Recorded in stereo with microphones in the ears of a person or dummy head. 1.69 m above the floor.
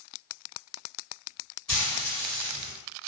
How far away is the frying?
About 1.3 m.